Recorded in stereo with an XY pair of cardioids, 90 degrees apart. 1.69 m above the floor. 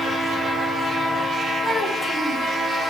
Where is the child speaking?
10° left, 6.5 m.